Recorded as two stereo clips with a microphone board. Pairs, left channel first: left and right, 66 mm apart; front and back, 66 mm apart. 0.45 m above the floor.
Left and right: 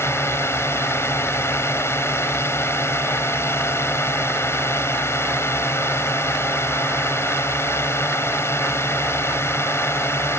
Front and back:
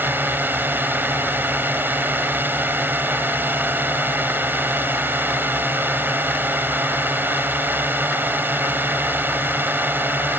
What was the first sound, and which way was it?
A drone, 130° left.